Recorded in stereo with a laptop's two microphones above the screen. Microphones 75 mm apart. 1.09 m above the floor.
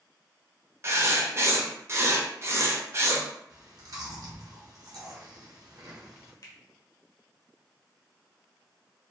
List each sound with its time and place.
0.8 s writing: 40° right (ahead or behind), 0.6 m
3.5 s chewing: 55° right (ahead or behind), 1.2 m
6.4 s a finger snap: 50° left (ahead or behind), 0.9 m